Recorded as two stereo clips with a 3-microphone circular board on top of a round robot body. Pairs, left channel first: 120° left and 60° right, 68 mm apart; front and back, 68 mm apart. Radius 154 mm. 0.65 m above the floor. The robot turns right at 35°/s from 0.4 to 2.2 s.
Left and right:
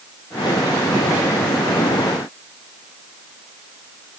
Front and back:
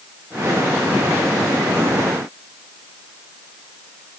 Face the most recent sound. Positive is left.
No sound to turn to.